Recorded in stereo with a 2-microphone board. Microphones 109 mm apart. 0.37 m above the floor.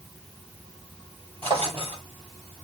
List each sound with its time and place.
1.4 s a drawer: 55° right (ahead or behind), 5 m